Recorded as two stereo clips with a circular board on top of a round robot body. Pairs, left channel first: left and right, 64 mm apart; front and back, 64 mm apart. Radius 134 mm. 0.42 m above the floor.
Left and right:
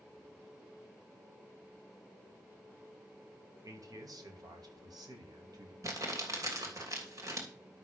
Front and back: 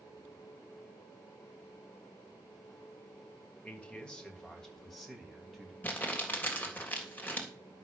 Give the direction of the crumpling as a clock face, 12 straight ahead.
2 o'clock.